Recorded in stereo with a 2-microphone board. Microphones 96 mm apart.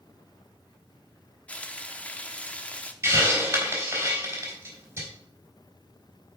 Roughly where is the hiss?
Right.